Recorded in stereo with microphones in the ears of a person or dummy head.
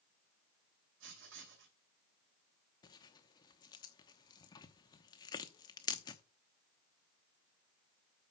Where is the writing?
70° right (ahead or behind), 2.5 m.